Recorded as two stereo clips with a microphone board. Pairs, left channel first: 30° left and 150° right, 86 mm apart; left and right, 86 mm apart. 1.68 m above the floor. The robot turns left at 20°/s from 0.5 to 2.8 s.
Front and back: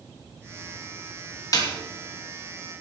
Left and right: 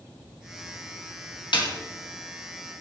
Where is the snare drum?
75° left, 2.5 m; by 1.7 s 70° left, 2.5 m.